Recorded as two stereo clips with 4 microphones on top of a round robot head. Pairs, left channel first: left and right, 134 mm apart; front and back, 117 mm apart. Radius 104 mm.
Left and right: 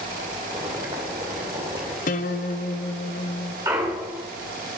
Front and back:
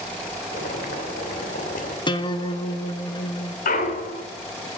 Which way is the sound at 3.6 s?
15° right.